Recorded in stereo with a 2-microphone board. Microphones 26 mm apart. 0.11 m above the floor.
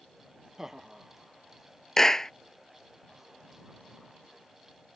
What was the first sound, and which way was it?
Laughter, 15° right (ahead or behind).